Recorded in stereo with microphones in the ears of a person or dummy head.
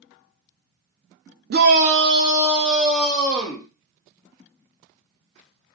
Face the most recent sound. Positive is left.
turn(degrees=10)  # may be behind; listen again after turning